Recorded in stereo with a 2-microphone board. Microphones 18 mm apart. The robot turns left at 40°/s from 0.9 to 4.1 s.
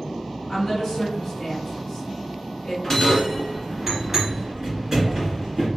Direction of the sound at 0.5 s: 15° left (ahead or behind).